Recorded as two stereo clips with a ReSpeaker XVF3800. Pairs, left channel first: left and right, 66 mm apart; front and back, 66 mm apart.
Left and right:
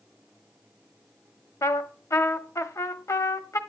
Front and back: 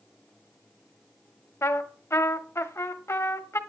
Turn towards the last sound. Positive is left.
turn(degrees=45)